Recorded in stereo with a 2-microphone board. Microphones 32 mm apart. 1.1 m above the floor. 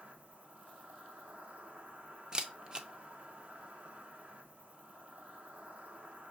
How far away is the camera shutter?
About 0.5 m.